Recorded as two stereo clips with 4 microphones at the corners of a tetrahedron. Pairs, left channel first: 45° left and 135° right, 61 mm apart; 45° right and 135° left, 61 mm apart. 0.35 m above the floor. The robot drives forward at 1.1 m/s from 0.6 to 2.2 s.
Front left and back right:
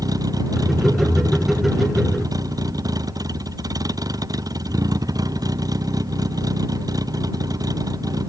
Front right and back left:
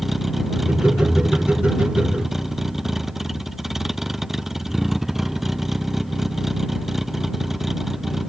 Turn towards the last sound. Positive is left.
turn(degrees=-140)